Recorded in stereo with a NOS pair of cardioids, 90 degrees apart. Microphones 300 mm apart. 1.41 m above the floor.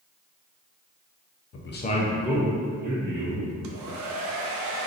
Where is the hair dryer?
70° right, 0.6 m.